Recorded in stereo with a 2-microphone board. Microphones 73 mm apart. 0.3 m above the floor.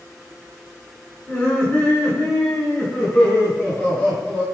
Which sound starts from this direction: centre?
Laughter, at 1.3 s.